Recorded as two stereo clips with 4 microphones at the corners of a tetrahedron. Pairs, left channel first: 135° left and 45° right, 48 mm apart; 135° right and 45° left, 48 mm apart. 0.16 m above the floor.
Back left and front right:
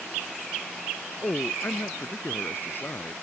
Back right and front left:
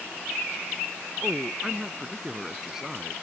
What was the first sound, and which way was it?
A man speaking, 125° left.